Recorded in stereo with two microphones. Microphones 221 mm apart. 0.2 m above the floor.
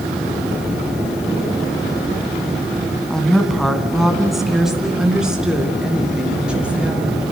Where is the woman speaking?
5° left (ahead or behind), 1.9 m; by 7.3 s 5° right (ahead or behind), 5 m.